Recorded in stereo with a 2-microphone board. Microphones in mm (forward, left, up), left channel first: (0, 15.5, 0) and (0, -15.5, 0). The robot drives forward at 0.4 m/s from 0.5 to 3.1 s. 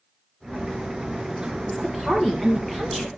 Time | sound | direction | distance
1.7 | a woman speaking | 15° left (ahead or behind) | 2 m